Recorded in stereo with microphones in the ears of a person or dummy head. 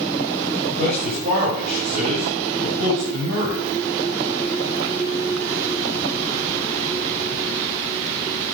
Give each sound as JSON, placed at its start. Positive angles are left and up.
{"t": 0.8, "sound": "a man speaking", "side_deg": -50, "distance_m": 5.0}